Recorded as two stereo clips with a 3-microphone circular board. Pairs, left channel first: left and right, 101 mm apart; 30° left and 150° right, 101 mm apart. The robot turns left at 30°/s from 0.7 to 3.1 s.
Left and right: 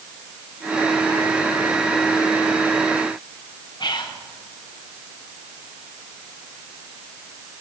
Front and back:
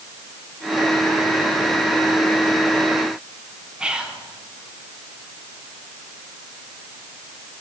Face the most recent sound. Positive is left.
turn(degrees=130)